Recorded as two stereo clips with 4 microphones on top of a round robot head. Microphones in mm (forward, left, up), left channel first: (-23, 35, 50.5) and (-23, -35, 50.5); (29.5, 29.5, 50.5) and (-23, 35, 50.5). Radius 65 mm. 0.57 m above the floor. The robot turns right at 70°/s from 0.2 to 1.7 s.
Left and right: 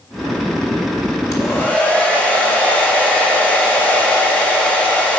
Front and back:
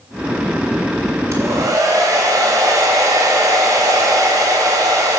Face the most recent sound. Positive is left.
turn(degrees=165)